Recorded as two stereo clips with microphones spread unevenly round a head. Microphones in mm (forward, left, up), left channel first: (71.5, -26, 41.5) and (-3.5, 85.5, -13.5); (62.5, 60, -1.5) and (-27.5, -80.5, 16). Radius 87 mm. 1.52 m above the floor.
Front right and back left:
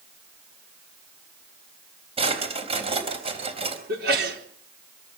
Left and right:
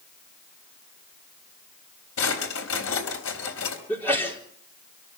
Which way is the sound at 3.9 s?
140° left.